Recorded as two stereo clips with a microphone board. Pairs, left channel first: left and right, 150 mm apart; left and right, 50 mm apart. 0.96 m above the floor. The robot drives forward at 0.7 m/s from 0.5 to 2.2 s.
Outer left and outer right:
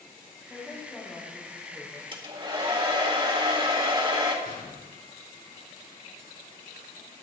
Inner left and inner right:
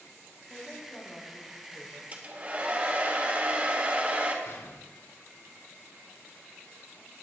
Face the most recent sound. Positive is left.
turn(degrees=75)  # may be behind; listen again after turning